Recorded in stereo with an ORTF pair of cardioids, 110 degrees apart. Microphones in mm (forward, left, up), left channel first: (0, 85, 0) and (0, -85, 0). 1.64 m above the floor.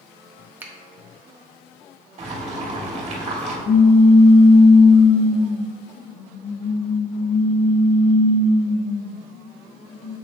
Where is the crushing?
I don't hear crushing.